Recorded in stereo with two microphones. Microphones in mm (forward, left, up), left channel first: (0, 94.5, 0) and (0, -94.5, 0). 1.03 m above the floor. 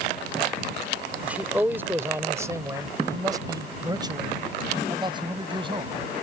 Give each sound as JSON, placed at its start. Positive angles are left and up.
{"t": 1.2, "sound": "a man speaking", "side_deg": -10}